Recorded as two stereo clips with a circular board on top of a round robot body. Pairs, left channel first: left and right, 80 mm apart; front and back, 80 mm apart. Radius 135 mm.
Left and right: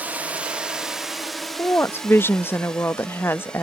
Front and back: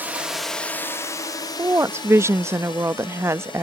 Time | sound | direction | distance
0.0 | a drone | 140° right | ?
1.6 | a woman speaking | 140° left | ?